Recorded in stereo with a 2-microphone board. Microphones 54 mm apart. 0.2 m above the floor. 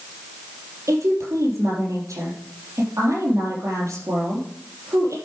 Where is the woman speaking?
65° right (ahead or behind), 4.5 m.